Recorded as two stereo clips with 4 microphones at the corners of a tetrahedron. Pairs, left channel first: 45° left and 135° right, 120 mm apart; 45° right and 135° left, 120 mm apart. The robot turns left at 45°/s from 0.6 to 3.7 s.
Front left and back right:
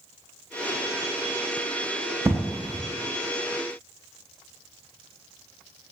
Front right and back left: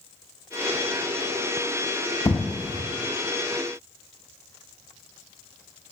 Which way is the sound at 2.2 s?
75° right.